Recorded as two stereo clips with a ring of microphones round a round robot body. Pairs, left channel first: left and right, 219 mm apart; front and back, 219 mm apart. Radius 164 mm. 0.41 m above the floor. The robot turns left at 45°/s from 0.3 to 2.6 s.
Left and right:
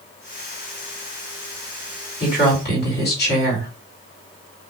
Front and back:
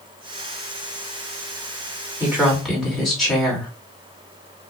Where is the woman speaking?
105° left, 1.8 m; by 3.7 s 90° left, 1.8 m.